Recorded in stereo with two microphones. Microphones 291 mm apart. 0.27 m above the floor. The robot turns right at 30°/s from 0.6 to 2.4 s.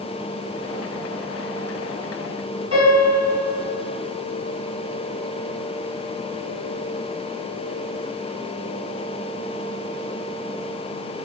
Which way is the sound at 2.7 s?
55° left (ahead or behind).